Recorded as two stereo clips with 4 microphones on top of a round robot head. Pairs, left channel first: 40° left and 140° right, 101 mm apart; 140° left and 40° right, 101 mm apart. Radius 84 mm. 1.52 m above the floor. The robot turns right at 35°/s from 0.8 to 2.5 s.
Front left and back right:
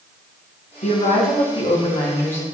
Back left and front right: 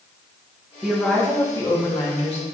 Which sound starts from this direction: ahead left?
A woman speaking, at 0.8 s.